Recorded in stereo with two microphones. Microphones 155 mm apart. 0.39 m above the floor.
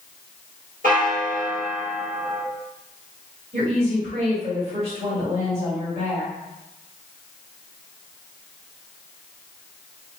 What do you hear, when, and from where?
0.8 s a bell: 60° right (ahead or behind), 0.8 m
3.5 s a woman speaking: 45° right (ahead or behind), 1.4 m